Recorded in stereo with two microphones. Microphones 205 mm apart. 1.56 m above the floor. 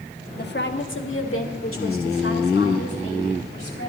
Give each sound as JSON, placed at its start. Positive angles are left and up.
{"t": 0.4, "sound": "a woman speaking", "side_deg": 50, "distance_m": 1.0}